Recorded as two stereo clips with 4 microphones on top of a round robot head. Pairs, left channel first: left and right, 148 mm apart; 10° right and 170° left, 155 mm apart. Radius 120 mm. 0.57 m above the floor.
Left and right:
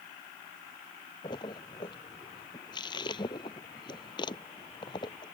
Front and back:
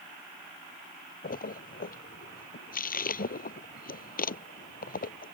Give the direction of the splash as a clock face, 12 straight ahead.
11 o'clock.